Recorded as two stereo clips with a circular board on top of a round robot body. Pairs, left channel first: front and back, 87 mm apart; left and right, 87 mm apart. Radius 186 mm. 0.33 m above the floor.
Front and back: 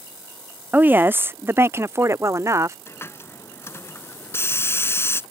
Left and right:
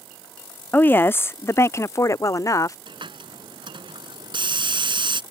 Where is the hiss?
60° right.